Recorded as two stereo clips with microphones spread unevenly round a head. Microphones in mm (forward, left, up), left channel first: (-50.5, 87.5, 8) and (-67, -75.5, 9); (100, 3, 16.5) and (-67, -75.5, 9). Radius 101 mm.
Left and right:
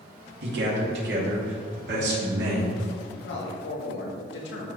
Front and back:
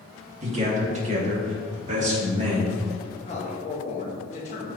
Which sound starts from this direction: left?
A man speaking, at 3.2 s.